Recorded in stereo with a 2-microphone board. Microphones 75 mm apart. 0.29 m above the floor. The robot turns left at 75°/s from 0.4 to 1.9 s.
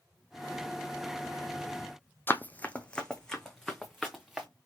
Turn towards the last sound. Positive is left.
turn(degrees=0)  # may be behind; listen again after turning